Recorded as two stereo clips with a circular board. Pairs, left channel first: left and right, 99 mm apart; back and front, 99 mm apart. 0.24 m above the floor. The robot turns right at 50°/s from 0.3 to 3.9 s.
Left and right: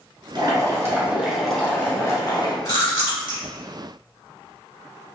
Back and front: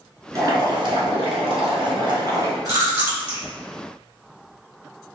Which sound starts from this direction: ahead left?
Chewing, at 2.6 s.